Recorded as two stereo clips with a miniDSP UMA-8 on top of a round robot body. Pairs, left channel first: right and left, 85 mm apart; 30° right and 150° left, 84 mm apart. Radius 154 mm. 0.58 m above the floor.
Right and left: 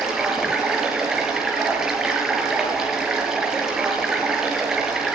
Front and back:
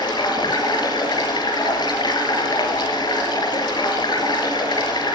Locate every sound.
0.0 s running water: 5° left, 5.5 m